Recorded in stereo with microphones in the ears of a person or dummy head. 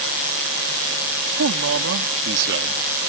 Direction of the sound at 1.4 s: 80° right.